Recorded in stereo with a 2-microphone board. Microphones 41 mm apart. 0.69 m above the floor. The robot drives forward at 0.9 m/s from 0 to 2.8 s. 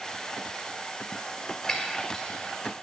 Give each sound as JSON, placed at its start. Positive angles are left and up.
{"t": 1.7, "sound": "breaking glass", "side_deg": 20, "distance_m": 1.5}